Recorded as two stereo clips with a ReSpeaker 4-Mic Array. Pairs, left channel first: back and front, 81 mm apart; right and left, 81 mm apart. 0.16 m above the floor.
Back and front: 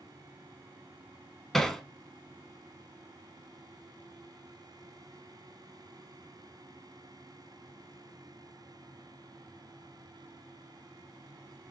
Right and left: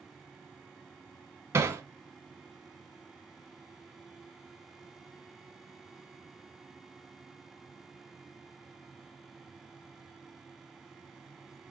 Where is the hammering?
95° left, 0.7 m.